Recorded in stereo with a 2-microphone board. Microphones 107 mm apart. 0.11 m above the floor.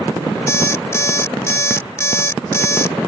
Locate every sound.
0.5 s an alarm clock: 25° left (ahead or behind)